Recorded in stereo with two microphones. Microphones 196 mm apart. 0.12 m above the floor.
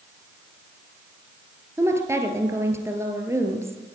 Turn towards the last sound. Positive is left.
turn(degrees=-15)  # may be behind; listen again after turning